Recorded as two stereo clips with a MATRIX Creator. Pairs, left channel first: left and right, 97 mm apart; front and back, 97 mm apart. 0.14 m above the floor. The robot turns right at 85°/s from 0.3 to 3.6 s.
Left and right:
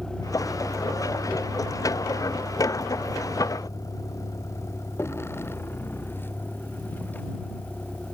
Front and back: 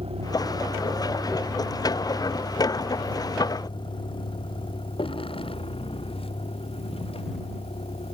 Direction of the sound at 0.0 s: 175° left.